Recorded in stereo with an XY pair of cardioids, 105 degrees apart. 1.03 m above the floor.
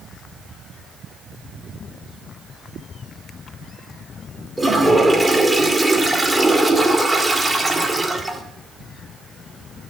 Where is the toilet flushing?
15° right, 1.8 m.